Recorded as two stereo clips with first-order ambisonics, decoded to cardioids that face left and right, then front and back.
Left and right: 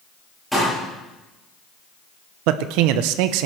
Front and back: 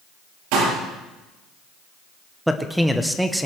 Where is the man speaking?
90° right, 0.9 m.